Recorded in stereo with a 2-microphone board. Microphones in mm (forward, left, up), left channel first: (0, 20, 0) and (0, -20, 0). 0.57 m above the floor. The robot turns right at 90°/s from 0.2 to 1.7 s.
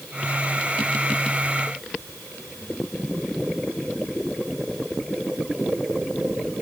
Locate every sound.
Only background noise.